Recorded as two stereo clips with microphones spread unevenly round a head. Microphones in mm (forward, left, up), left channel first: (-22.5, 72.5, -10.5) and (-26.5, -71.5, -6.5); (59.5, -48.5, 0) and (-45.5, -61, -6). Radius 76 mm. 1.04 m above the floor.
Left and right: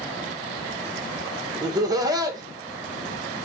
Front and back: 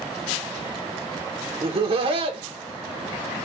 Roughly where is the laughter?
Behind right.